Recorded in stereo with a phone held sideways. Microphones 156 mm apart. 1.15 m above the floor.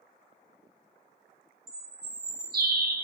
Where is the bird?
75° right (ahead or behind), 0.6 m.